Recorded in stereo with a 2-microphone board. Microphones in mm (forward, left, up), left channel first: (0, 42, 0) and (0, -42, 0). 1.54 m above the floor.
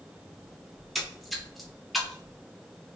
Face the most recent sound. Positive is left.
turn(degrees=0)  # may be behind; listen again after turning